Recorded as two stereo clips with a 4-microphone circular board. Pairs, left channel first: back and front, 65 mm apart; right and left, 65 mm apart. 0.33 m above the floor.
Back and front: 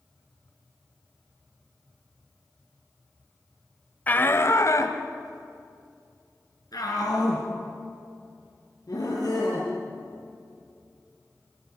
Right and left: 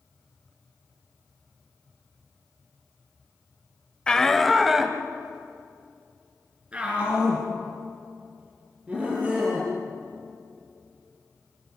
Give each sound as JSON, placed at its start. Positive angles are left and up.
{"t": 4.1, "sound": "a shout", "azimuth_deg": -150, "distance_m": 1.0}